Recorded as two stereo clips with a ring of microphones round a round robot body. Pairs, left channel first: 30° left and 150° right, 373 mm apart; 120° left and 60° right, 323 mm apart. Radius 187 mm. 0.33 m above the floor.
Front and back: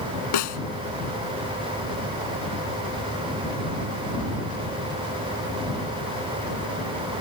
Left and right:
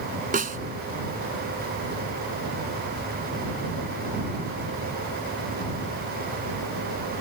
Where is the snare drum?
5° left.